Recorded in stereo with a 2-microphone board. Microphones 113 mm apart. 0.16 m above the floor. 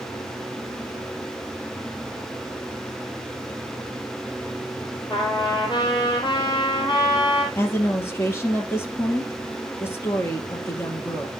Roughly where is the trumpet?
Left.